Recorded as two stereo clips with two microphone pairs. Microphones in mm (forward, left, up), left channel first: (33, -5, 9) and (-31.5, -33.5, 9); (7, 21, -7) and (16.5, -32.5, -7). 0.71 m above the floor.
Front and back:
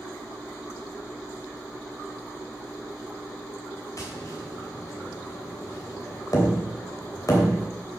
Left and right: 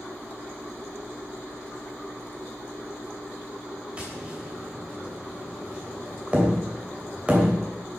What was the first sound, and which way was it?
Tapping, 15° right.